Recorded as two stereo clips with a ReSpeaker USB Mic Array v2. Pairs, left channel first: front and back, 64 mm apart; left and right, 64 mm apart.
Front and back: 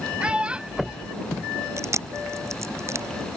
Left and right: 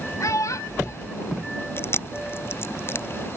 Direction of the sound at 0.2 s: 110° left.